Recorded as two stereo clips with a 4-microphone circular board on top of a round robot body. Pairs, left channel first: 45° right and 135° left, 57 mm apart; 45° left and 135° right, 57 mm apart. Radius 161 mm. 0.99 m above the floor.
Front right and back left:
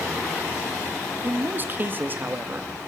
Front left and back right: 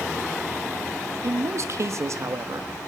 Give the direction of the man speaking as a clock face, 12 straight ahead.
6 o'clock.